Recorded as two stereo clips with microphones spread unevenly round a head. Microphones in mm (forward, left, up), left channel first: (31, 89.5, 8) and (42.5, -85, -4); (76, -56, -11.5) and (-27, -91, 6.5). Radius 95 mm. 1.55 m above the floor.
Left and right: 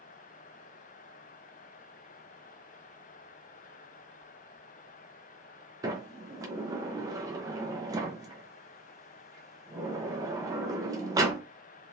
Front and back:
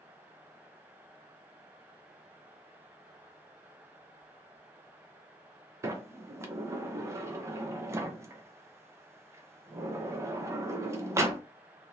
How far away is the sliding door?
About 0.6 m.